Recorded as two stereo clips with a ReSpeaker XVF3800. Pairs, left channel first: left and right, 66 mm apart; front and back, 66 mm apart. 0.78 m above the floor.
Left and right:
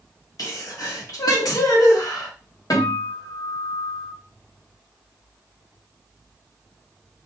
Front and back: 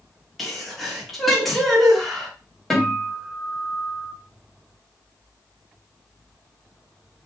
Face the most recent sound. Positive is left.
turn(degrees=85)